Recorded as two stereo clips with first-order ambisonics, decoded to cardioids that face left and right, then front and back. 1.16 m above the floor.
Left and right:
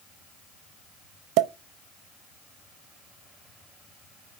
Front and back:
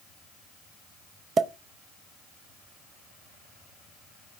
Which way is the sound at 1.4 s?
115° right.